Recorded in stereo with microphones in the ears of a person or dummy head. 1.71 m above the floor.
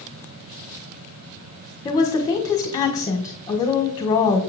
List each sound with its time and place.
1.9 s a woman speaking: 20° left (ahead or behind), 1.4 m